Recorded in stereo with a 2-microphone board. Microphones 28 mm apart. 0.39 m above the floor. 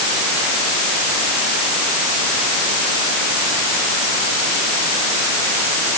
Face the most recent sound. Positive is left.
No sound to turn to.